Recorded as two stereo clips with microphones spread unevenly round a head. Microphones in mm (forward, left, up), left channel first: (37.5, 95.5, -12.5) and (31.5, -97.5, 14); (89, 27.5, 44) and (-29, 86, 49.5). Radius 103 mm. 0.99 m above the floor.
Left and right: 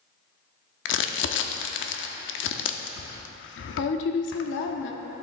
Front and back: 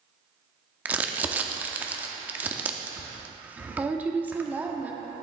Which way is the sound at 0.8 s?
80° left.